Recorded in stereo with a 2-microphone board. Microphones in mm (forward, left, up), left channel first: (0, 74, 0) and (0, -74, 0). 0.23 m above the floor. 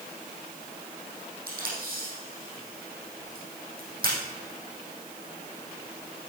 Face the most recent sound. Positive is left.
turn(degrees=-70)  # may be behind; listen again after turning